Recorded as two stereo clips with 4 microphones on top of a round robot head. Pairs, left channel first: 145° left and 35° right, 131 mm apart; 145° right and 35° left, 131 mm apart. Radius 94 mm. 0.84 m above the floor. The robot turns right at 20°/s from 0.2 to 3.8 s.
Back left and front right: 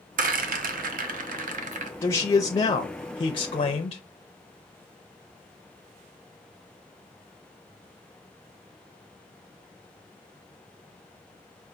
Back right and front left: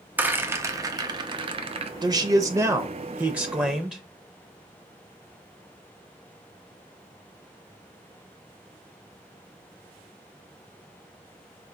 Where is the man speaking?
80° left, 0.6 m; by 4.0 s 120° left, 0.6 m.